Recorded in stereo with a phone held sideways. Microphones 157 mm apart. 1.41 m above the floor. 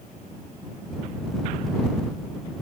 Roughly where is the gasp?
I don't hear a gasp.